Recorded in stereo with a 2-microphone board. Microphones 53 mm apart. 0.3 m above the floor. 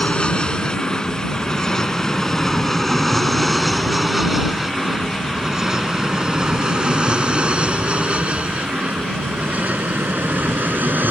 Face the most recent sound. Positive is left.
turn(degrees=-35)  # may be behind; listen again after turning